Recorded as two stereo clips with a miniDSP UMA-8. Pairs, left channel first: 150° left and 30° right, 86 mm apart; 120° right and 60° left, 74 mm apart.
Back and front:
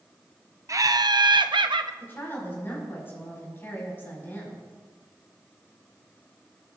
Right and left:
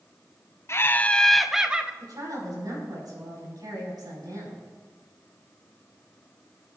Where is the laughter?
75° right, 0.5 m; by 1.9 s 10° right, 0.8 m.